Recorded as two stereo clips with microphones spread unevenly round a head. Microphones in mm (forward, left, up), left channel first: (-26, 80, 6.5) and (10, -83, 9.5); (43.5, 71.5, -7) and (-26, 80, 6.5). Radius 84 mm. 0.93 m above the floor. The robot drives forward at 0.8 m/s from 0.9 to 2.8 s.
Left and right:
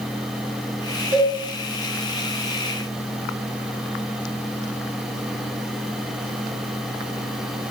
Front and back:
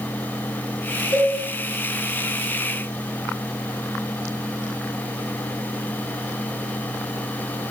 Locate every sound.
1.1 s a cowbell: 10° left, 1.8 m